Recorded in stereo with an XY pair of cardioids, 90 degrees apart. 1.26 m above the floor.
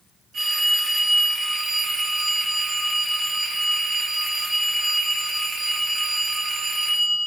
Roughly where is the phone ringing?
Ahead right.